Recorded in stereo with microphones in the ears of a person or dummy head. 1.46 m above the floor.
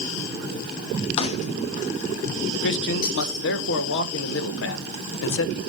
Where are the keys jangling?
30° left (ahead or behind), 0.7 m; by 3.5 s 45° left (ahead or behind), 2.5 m.